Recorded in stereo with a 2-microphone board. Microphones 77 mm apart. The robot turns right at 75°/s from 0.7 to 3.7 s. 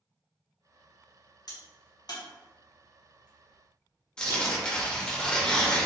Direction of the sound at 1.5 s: 60° left (ahead or behind).